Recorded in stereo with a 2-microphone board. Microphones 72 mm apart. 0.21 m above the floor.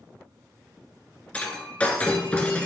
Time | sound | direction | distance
1.3 | breaking glass | 20° left (ahead or behind) | 1.3 m